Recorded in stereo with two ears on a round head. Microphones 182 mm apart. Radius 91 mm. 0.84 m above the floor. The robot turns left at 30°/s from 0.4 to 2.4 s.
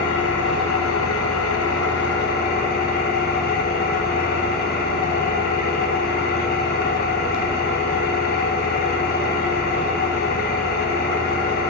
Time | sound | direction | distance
0.0 | an engine running | 110° left | 0.8 m